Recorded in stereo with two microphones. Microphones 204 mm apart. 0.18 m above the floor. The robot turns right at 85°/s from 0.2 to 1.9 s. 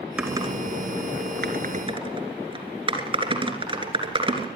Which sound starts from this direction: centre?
Typing on a keyboard, at 0.2 s.